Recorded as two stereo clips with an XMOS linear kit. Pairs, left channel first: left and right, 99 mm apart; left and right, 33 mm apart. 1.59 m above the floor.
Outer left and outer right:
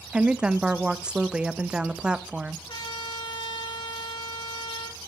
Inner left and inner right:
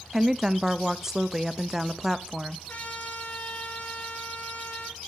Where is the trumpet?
55° left (ahead or behind), 4.5 m.